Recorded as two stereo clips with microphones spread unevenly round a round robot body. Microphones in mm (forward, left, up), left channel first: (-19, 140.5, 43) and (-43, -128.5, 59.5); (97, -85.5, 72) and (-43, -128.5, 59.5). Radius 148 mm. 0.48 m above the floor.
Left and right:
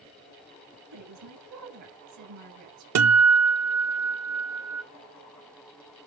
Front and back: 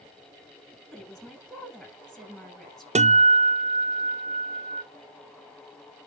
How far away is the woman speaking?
About 6.5 m.